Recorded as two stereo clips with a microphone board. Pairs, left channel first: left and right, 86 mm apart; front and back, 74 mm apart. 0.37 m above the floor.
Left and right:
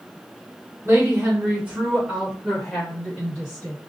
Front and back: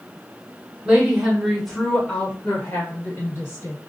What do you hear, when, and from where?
0.8 s a woman speaking: 120° right, 1.5 m; by 3.8 s 20° left, 1.9 m